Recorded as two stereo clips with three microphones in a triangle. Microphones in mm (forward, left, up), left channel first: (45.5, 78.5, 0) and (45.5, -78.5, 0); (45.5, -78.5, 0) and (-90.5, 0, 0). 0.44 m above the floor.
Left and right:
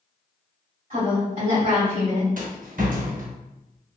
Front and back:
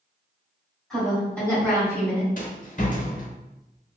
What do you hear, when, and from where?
0.9 s a woman speaking: 115° right, 1.8 m; by 2.3 s 105° right, 2.5 m
2.4 s a rattle: 65° right, 0.8 m